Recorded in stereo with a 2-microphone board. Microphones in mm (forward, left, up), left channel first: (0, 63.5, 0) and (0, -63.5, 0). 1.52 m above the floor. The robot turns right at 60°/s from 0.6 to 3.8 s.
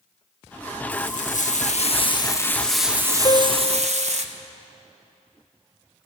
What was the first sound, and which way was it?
Frying, 65° left.